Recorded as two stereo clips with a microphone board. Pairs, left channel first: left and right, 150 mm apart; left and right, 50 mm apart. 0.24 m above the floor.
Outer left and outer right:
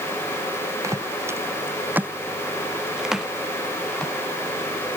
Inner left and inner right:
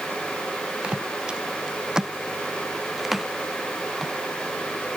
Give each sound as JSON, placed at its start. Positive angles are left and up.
{"t": 0.8, "sound": "footsteps", "side_deg": -20}